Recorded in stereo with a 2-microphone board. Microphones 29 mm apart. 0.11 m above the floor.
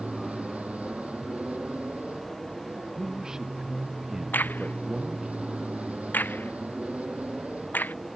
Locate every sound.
0.0 s an aircraft: 45° right (ahead or behind)
2.9 s a man speaking: 25° right (ahead or behind)
4.3 s a crack: 70° left (ahead or behind)